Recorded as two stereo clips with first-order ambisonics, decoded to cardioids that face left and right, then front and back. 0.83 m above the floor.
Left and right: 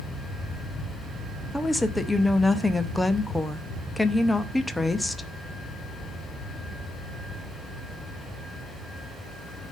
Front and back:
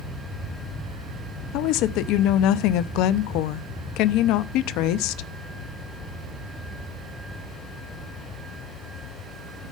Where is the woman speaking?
5° left, 0.7 m.